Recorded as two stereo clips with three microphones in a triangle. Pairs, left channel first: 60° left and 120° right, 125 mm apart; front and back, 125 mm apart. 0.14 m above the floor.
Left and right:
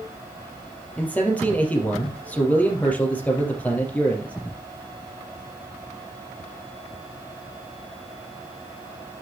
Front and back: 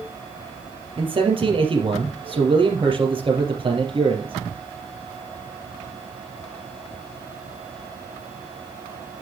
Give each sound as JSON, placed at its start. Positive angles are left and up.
{"t": 1.0, "sound": "a man speaking", "azimuth_deg": 140, "distance_m": 3.5}